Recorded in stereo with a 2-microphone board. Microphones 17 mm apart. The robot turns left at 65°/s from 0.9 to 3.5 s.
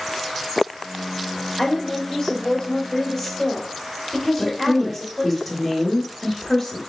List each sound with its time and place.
1.6 s a woman speaking: 110° left, 1.4 m; by 5.4 s 15° right, 1.4 m
4.4 s a woman speaking: centre (ahead or behind), 1.1 m